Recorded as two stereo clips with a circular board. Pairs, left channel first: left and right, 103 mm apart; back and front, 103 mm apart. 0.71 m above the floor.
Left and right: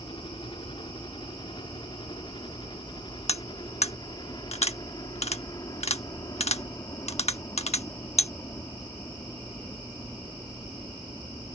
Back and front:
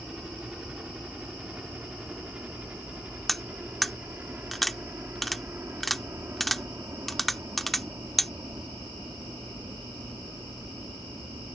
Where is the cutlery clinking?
90° left.